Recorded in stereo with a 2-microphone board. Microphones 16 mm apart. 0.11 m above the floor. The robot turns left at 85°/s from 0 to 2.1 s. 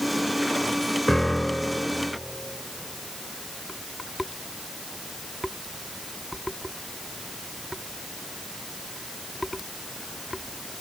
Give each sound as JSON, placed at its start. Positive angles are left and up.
{"t": 1.1, "sound": "a piano", "azimuth_deg": 140, "distance_m": 1.3}